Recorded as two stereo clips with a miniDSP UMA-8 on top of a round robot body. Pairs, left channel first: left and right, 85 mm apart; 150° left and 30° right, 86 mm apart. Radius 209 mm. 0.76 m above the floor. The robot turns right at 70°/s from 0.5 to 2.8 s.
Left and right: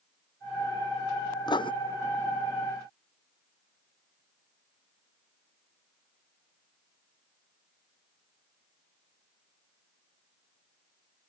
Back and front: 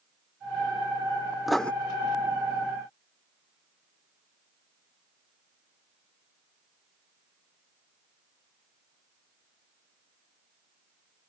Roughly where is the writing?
Ahead left.